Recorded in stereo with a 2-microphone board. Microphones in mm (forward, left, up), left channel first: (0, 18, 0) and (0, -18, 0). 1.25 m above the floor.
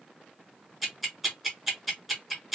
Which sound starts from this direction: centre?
Ticking, at 0.8 s.